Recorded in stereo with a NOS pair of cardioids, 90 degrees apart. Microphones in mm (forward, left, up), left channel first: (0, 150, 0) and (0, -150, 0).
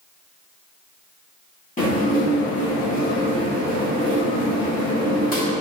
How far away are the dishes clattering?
About 1.9 m.